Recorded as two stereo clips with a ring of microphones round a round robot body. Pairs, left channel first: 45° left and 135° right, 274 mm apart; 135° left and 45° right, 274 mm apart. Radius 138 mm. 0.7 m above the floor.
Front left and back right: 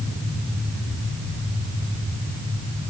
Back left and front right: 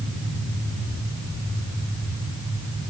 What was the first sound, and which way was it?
Only background noise.